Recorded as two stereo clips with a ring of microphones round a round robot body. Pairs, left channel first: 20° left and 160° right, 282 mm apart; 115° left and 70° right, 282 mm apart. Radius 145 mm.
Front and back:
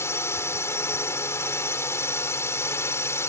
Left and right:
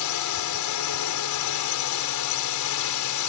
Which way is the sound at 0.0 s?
105° left.